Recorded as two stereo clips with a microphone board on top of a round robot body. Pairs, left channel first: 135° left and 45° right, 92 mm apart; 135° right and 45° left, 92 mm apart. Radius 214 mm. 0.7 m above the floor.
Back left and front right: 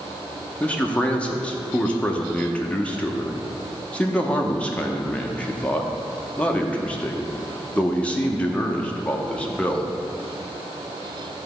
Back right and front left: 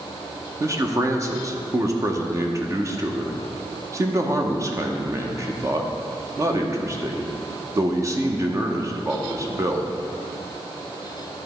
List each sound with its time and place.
0.6 s a man speaking: 65° left, 1.0 m